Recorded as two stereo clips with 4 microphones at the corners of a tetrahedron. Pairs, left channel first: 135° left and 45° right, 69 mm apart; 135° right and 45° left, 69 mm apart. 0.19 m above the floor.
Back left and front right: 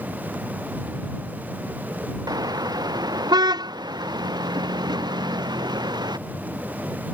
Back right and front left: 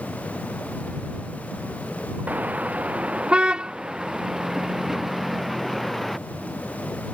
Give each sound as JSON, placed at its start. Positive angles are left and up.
{"t": 2.3, "sound": "a car horn", "azimuth_deg": -25}